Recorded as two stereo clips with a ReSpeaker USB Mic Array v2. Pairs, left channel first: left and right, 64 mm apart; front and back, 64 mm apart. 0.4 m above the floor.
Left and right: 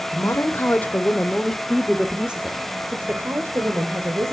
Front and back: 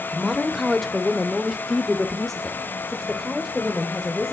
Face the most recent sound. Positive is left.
turn(degrees=-80)